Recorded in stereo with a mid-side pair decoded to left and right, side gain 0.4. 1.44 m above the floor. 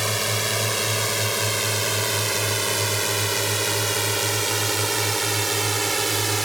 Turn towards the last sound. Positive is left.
turn(degrees=-20)